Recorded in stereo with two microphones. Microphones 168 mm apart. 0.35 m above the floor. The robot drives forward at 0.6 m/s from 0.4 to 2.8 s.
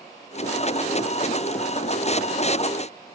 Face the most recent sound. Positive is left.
No sound to turn to.